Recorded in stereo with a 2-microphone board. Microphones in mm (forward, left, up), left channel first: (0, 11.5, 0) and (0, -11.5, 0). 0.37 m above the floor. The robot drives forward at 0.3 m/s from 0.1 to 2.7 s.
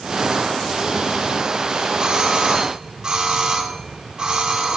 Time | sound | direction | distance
2.0 | a doorbell | 40° right (ahead or behind) | 2.5 m